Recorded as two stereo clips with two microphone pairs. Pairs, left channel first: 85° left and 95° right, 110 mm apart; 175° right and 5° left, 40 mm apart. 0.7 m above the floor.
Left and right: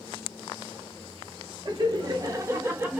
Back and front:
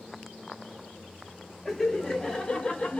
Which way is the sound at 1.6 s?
90° right.